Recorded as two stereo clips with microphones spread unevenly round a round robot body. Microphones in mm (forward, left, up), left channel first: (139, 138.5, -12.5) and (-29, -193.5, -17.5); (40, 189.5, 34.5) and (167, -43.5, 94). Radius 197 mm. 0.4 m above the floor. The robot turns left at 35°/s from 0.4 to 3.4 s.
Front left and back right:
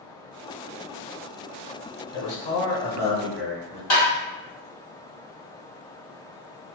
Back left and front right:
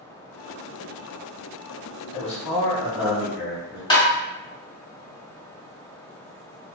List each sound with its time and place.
2.1 s a man speaking: 40° left, 1.7 m; by 3.8 s 5° right, 1.7 m
3.9 s tapping: 65° left, 1.7 m